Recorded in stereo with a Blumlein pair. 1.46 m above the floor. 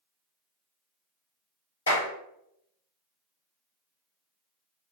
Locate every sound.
1.9 s a clap: 70° left, 2 m